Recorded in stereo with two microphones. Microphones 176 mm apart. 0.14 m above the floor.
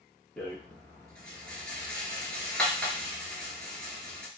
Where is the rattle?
5° left (ahead or behind), 1.0 m.